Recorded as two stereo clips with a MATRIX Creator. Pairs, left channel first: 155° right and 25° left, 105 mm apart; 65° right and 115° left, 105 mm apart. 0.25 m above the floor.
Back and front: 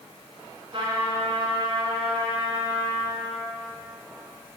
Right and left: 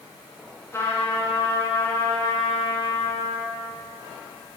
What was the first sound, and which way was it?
A trumpet, 5° right.